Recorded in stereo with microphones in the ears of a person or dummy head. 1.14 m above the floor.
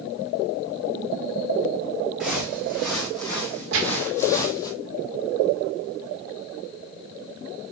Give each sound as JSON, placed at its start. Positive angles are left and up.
{"t": 2.2, "sound": "footsteps", "side_deg": -5, "distance_m": 4.0}
{"t": 3.7, "sound": "a gunshot", "side_deg": -80, "distance_m": 2.0}